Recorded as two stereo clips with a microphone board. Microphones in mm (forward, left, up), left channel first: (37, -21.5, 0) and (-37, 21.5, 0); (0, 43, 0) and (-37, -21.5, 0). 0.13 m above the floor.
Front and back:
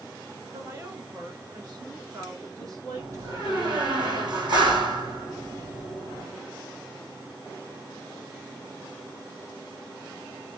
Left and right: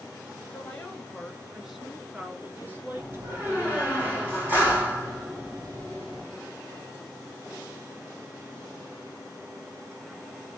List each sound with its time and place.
0.5 s a woman speaking: 125° left, 1.8 m; by 4.0 s 160° right, 2 m
3.0 s a door slam: 175° left, 4 m